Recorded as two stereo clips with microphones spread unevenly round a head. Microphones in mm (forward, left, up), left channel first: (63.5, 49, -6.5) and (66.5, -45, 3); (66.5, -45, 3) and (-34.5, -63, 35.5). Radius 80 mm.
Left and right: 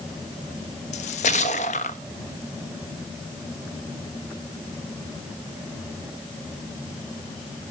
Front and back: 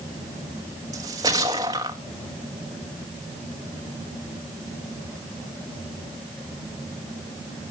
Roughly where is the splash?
Behind left.